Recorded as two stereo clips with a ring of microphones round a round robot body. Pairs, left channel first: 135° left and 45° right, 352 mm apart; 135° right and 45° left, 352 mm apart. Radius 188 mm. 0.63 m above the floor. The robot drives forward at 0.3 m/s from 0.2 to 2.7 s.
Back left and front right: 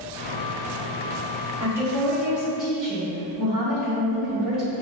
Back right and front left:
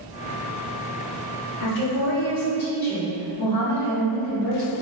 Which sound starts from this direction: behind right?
A woman speaking, at 1.6 s.